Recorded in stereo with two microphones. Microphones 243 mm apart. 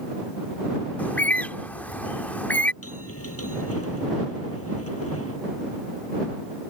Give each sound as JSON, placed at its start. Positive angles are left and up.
{"t": 1.0, "sound": "a bird", "side_deg": 5}
{"t": 2.8, "sound": "a bell", "side_deg": 70}